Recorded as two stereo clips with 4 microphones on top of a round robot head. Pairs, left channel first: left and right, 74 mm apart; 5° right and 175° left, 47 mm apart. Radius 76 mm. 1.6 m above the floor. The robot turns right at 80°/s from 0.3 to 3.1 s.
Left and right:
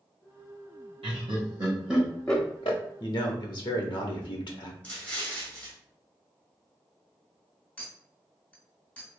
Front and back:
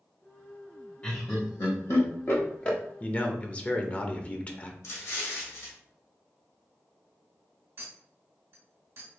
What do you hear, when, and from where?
1.0 s laughter: 80° right, 0.6 m; by 2.8 s 60° left, 0.6 m
3.0 s a man speaking: 50° left, 0.7 m; by 4.7 s 55° left, 0.7 m
4.8 s an explosion: 15° left, 0.9 m
7.8 s a clink: 160° left, 1.6 m